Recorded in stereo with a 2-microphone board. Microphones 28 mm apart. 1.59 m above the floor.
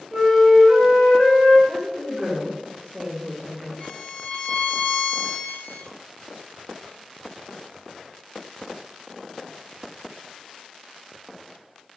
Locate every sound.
0.1 s a flute: centre (ahead or behind), 1.6 m
1.7 s a woman speaking: 15° left (ahead or behind), 1.6 m
3.8 s a violin: 50° left (ahead or behind), 1.5 m